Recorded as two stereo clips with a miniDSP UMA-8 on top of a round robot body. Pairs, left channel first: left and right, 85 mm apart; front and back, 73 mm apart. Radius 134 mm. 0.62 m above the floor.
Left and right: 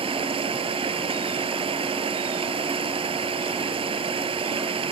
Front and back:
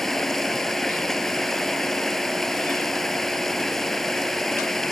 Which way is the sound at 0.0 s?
85° right.